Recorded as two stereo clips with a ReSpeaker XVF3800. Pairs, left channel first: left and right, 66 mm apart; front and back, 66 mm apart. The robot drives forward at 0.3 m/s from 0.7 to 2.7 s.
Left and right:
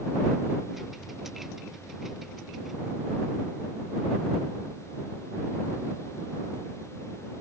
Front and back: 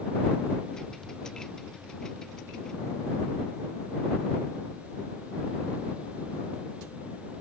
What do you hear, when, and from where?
Only background noise.